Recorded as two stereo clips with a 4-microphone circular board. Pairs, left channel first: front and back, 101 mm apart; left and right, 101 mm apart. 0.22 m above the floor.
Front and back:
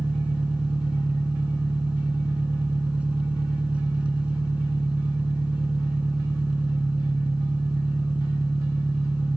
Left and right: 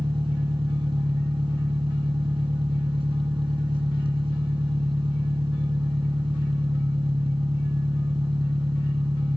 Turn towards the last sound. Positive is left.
turn(degrees=-105)